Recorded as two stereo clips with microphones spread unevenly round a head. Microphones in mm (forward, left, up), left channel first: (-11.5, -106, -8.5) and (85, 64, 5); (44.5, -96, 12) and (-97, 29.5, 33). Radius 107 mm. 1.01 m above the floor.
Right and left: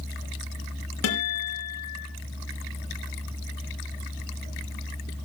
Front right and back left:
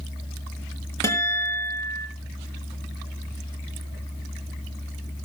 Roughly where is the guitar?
Behind right.